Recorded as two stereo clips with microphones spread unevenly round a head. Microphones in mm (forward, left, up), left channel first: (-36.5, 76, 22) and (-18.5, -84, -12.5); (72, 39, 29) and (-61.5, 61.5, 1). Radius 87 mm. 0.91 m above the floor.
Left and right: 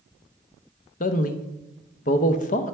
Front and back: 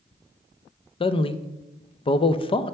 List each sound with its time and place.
1.0 s a man speaking: 45° left, 0.5 m